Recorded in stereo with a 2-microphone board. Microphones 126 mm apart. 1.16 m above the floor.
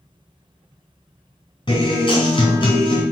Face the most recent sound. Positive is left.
turn(degrees=45)  # may be behind; listen again after turning